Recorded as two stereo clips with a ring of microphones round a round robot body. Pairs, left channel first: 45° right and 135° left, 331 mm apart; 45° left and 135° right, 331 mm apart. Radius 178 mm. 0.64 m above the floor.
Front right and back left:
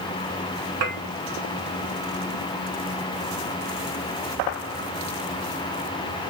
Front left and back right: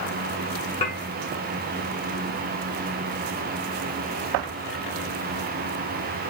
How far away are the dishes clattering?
About 1.6 m.